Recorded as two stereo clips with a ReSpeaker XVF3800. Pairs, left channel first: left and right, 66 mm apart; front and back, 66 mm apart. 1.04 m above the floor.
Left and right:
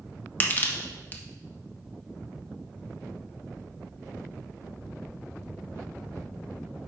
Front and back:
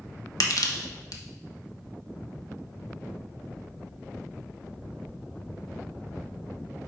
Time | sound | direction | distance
0.4 | crushing | 25° left | 0.9 m